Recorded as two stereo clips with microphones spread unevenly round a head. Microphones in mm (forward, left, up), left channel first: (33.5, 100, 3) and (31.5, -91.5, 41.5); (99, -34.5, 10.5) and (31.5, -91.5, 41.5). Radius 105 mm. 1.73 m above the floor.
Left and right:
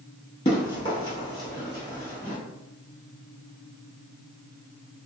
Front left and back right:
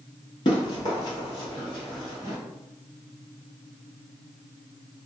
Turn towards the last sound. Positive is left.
turn(degrees=-175)